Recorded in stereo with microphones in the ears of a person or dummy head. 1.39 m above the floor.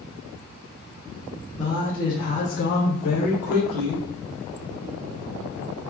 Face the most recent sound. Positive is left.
turn(degrees=65)  # may be behind; listen again after turning